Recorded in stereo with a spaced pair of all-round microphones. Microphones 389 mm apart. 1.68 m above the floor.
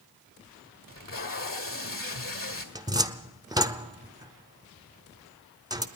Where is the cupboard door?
10° right (ahead or behind), 0.6 m.